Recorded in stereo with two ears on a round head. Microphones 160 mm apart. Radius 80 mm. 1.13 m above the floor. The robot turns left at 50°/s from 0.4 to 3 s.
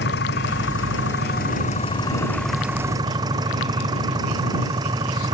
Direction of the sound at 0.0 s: 105° left.